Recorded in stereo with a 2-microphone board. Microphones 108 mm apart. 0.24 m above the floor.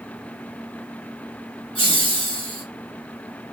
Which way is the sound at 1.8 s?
55° left (ahead or behind).